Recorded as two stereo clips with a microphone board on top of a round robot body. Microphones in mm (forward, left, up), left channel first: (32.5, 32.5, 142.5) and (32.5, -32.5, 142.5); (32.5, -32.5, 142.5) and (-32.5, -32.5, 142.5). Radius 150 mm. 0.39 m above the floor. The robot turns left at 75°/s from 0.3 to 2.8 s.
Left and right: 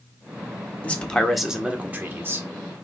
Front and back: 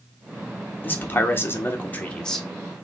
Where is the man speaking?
40° left, 1.2 m; by 2.5 s 85° right, 1.2 m.